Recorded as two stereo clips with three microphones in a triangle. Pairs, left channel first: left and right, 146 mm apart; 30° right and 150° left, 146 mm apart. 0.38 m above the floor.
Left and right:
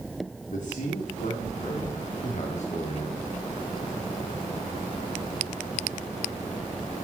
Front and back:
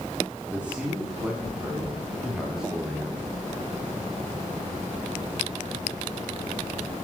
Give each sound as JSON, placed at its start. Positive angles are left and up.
{"t": 0.5, "sound": "a man speaking", "azimuth_deg": 70, "distance_m": 4.5}